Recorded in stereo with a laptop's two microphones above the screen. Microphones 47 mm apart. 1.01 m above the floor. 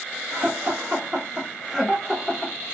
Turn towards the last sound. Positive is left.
turn(degrees=15)  # may be behind; listen again after turning